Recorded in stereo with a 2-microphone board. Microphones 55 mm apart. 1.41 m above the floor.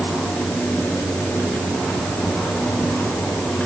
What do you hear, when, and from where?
Only background noise.